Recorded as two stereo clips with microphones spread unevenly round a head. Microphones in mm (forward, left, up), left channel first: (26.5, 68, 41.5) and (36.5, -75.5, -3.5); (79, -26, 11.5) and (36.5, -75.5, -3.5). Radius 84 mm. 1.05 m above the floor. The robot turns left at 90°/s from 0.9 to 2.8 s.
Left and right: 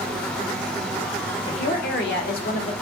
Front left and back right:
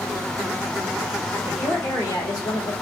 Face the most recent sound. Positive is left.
turn(degrees=40)